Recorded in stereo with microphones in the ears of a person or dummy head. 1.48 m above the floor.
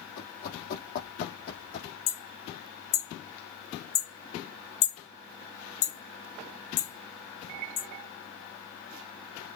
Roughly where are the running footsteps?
Left.